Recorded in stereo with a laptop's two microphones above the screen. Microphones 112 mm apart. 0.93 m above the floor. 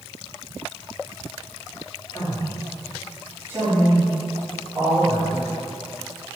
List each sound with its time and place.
2.1 s a man speaking: 35° left (ahead or behind), 1.0 m; by 5.5 s 60° right (ahead or behind), 1.8 m